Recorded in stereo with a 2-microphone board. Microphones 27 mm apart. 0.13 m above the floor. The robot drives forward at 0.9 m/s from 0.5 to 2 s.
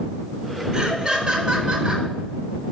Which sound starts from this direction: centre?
Laughter, at 0.7 s.